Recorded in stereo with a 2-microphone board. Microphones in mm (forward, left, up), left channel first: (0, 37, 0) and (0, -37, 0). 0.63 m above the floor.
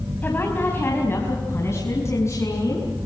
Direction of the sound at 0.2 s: 25° left (ahead or behind).